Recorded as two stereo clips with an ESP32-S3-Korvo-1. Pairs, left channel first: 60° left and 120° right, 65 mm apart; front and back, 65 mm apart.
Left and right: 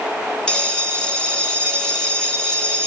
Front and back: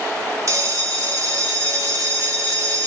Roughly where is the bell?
Behind left.